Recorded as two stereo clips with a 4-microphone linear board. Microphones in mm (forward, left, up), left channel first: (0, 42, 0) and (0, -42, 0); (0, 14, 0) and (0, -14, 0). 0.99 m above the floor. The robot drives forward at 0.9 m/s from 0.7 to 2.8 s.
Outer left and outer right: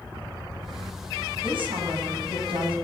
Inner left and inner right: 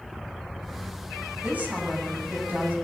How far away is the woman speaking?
About 8 m.